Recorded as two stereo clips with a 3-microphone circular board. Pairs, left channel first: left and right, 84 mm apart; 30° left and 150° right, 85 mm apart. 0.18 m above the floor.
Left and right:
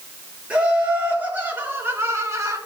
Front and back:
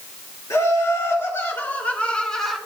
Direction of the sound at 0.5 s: 15° right.